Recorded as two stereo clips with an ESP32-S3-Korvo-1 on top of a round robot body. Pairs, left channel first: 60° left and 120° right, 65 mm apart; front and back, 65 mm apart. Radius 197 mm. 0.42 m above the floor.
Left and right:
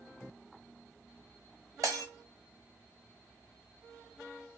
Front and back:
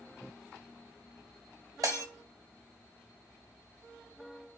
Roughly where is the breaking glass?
Behind right.